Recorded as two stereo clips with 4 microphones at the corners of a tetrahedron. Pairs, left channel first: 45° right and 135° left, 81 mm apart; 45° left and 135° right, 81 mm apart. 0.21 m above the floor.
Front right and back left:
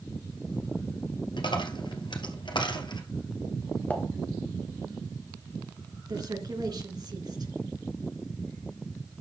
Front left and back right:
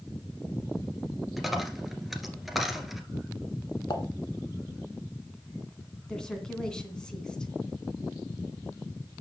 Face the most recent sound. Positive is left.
turn(degrees=125)